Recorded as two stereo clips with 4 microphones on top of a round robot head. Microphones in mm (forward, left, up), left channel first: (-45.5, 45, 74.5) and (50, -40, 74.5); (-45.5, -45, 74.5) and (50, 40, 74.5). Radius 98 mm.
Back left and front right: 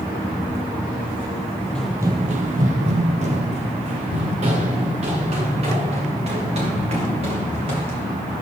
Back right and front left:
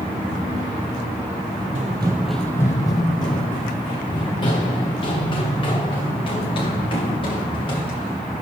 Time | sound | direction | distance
1.8 | running footsteps | 60° left | 0.5 m